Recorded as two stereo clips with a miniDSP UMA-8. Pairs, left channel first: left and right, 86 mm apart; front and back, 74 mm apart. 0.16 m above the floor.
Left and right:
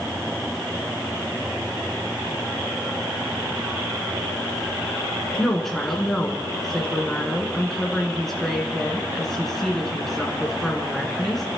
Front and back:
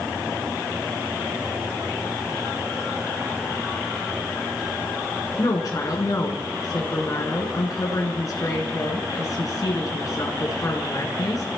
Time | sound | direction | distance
5.4 | a woman speaking | 5° left | 2 m